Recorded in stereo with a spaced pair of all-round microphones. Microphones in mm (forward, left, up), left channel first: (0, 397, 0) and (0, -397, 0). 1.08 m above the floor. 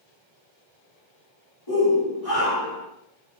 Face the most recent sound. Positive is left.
turn(degrees=30)  # may be behind; listen again after turning